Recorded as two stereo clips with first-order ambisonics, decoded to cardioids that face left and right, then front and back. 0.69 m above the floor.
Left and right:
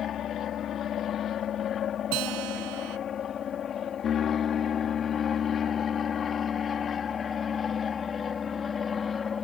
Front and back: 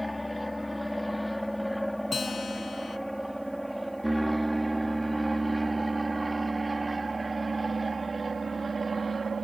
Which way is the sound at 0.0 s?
85° left.